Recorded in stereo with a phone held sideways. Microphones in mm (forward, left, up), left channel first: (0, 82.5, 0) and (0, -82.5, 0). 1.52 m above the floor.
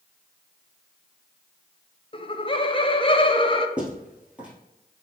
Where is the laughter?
30° left (ahead or behind), 0.6 m.